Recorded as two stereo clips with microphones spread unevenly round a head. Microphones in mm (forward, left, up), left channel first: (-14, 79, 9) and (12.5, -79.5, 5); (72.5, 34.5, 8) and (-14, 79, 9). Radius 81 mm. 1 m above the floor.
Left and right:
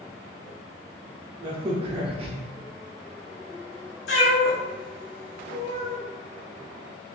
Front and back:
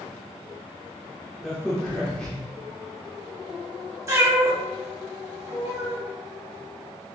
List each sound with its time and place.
1.4 s a crack: 105° right, 0.6 m
4.1 s a cat meowing: 95° left, 1.5 m